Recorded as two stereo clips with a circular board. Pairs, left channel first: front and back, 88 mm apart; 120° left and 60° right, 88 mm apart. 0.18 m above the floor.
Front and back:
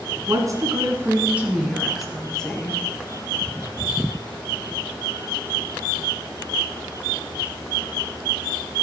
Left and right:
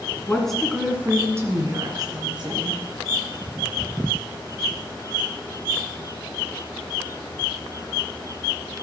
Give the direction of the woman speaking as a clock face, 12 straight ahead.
6 o'clock.